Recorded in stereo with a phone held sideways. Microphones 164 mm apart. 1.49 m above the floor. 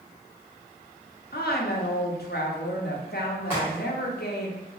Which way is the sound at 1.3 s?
75° left (ahead or behind).